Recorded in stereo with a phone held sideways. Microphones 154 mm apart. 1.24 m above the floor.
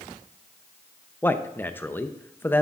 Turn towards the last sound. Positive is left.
turn(degrees=10)  # may be behind; listen again after turning